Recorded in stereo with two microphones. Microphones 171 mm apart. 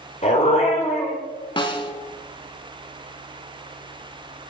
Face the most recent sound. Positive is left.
turn(degrees=25)  # may be behind; listen again after turning